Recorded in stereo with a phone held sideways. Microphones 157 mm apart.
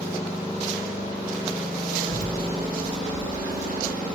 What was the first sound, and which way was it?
A child speaking, 65° right (ahead or behind).